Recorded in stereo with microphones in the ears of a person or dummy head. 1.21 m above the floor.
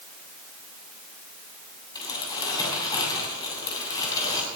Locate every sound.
1.9 s crumpling: 20° left (ahead or behind), 7.5 m